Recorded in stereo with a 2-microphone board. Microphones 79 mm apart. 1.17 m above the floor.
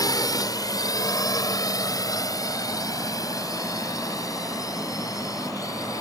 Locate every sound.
0.0 s a drone: 50° left (ahead or behind); by 6.0 s 45° left (ahead or behind)